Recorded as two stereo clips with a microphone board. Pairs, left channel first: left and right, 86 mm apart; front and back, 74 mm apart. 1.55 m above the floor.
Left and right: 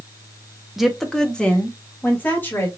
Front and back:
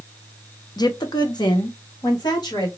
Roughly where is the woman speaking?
Ahead.